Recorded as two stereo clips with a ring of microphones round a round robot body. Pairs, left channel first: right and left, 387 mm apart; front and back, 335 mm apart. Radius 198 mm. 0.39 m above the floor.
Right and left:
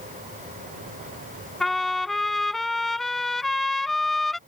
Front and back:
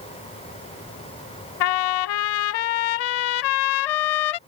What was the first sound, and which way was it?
A trumpet, straight ahead.